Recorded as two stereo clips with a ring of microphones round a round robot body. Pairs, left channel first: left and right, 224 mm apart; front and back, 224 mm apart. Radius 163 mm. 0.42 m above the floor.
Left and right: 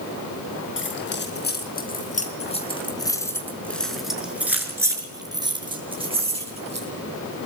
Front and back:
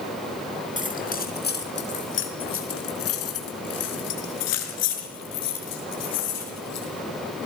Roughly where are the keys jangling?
Ahead left.